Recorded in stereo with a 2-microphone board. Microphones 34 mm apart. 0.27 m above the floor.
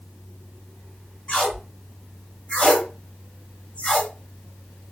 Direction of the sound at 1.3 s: 40° left (ahead or behind).